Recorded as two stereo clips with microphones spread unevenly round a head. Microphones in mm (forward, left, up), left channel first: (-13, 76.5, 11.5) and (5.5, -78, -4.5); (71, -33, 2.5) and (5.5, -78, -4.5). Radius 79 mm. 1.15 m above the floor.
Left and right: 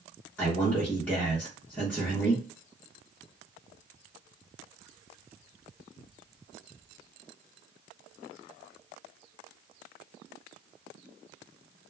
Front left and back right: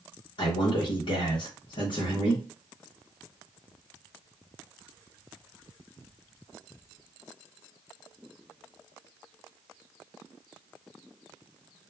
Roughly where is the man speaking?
Ahead.